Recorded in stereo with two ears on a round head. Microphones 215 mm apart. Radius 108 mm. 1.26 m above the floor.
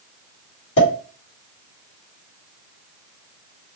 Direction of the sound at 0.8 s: 50° left (ahead or behind).